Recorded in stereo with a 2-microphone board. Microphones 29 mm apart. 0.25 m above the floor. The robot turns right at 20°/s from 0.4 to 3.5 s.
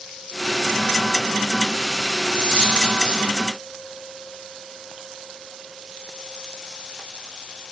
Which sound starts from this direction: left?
A dropped coin, at 2.3 s.